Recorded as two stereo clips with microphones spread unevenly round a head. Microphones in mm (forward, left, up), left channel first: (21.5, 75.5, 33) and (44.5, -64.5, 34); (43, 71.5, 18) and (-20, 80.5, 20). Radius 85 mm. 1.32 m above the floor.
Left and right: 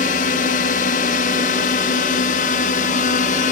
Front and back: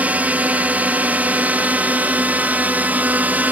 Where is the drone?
110° left.